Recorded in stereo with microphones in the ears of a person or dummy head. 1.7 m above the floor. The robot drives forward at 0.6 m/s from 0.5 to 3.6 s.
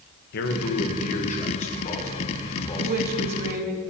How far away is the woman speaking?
About 1.4 m.